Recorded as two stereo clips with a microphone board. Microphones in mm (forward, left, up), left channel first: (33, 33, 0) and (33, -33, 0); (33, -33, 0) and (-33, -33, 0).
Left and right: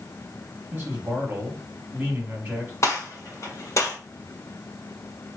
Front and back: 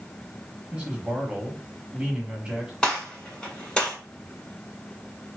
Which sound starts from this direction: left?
A gunshot, at 2.8 s.